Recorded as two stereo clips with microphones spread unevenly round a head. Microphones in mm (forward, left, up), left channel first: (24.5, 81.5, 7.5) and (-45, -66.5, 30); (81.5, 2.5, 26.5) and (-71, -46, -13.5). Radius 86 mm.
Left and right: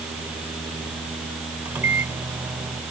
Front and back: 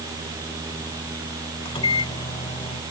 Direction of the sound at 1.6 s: 40° right.